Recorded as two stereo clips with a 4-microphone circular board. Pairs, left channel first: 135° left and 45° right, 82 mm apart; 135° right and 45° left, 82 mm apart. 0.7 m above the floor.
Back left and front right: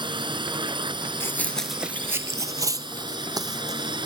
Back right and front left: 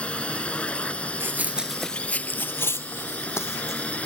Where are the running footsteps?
90° left; by 4.0 s 80° right.